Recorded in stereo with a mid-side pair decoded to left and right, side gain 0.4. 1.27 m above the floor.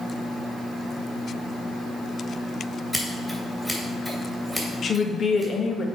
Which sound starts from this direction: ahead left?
A woman speaking, at 4.8 s.